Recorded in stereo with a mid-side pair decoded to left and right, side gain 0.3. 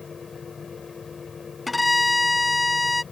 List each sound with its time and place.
0.0 s a fan: 50° left
1.7 s a violin: 20° left